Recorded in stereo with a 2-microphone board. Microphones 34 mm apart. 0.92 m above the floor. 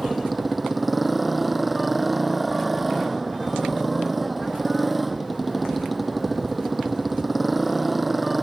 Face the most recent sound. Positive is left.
turn(degrees=-5)  # may be behind; listen again after turning